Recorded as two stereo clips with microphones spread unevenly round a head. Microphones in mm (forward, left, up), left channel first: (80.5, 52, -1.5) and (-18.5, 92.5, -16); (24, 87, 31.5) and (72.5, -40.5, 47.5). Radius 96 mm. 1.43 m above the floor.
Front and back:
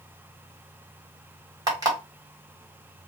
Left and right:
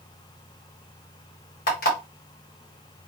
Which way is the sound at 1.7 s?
105° left.